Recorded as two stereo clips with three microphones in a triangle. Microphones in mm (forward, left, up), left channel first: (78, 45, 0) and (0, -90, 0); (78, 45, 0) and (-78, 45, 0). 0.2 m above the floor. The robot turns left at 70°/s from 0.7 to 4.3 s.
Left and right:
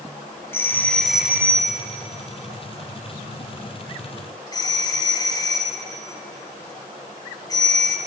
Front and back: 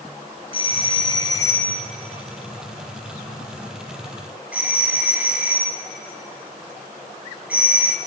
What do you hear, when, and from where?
0.5 s a doorbell: 5° right, 2 m; by 8.0 s 105° left, 2 m